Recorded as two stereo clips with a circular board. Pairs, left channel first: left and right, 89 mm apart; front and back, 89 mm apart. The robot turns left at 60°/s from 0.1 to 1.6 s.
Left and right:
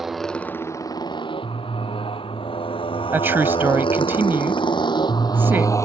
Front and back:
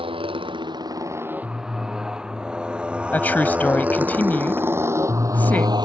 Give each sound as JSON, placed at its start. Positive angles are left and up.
{"t": 0.0, "sound": "a motorcycle", "azimuth_deg": -175}
{"t": 3.1, "sound": "a woman speaking", "azimuth_deg": -50}